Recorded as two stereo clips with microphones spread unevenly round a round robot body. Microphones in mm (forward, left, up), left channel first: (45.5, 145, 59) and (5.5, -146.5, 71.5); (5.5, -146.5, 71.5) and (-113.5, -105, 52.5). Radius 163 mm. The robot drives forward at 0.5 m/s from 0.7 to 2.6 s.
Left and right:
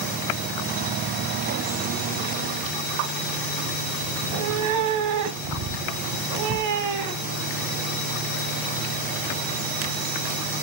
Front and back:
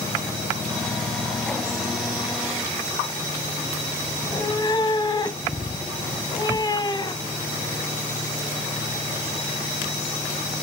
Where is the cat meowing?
80° right, 1.4 m.